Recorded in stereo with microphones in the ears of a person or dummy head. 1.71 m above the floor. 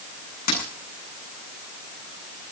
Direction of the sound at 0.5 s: 45° left (ahead or behind).